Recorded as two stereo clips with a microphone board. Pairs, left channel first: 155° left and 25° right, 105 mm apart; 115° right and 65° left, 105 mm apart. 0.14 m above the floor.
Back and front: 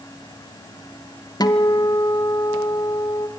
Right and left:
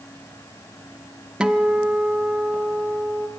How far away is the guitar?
About 1.1 m.